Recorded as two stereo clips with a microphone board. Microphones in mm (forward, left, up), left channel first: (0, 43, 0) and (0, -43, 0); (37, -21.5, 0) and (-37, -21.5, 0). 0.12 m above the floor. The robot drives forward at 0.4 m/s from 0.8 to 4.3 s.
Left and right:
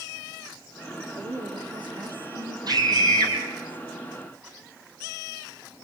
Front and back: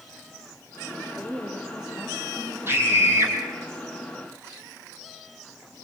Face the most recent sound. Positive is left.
turn(degrees=-130)